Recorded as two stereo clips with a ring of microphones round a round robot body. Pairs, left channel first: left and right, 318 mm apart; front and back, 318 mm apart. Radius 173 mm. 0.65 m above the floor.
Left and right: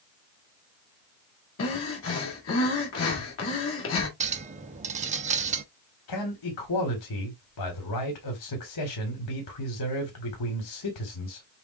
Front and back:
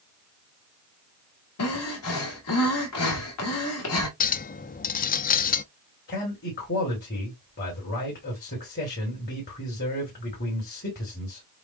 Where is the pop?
No pop in this recording.